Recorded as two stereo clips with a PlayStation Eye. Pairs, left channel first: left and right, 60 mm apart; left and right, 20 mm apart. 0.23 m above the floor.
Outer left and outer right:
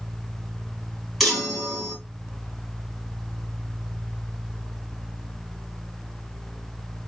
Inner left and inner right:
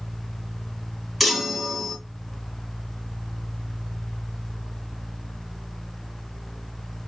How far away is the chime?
About 2 m.